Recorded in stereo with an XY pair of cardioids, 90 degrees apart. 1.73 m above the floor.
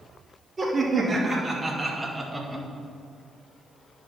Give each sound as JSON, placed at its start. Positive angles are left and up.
{"t": 0.6, "sound": "laughter", "azimuth_deg": -25, "distance_m": 3.0}